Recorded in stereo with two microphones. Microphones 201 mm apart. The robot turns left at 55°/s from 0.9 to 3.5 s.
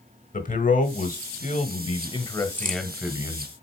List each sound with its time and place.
0.3 s a man speaking: 105° left, 1.2 m; by 3.5 s 35° right, 1.2 m
2.5 s a crack: 40° right (ahead or behind), 1.1 m; by 2.8 s 45° right (ahead or behind), 1.1 m